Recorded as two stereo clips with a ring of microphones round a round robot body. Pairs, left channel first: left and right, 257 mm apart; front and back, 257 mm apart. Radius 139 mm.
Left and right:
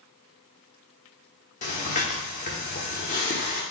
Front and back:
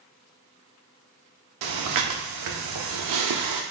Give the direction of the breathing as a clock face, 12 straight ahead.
7 o'clock.